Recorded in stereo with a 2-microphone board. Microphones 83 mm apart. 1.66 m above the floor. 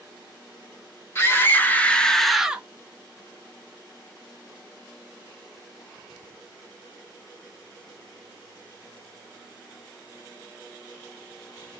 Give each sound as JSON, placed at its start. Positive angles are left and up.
{"t": 1.1, "sound": "a scream", "side_deg": 30, "distance_m": 1.7}